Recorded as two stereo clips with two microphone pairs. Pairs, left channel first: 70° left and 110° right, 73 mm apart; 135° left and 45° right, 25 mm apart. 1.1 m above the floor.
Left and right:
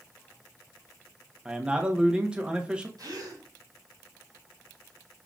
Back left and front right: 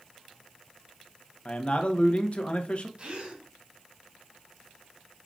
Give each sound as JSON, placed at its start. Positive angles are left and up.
{"t": 1.4, "sound": "a man speaking", "azimuth_deg": 175, "distance_m": 0.9}
{"t": 3.0, "sound": "a gasp", "azimuth_deg": -90, "distance_m": 2.5}